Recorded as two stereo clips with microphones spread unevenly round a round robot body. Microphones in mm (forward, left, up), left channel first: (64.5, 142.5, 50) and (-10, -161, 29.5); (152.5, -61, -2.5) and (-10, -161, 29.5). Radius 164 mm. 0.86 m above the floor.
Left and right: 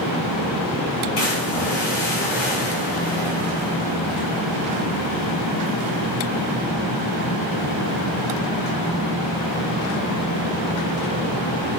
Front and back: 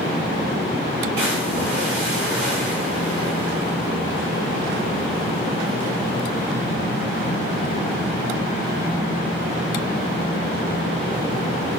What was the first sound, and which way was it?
A splash, 125° left.